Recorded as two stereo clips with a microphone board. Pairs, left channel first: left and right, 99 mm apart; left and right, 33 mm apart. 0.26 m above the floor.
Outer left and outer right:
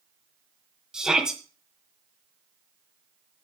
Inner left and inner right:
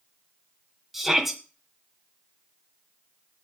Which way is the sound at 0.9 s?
5° right (ahead or behind).